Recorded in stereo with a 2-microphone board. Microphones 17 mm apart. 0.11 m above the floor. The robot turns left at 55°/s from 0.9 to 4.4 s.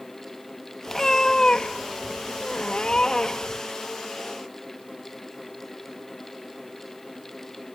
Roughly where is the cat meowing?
Behind.